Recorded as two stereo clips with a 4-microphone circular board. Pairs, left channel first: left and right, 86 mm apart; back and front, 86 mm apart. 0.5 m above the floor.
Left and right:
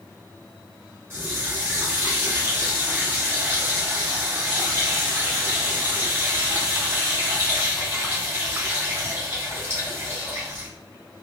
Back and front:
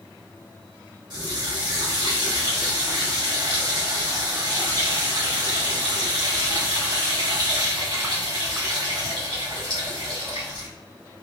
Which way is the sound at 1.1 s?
30° right.